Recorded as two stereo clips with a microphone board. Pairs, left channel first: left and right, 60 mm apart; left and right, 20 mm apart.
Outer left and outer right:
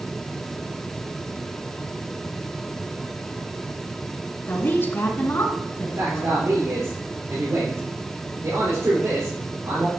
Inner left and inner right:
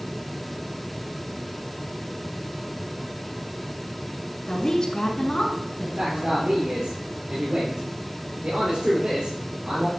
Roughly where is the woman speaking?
Left.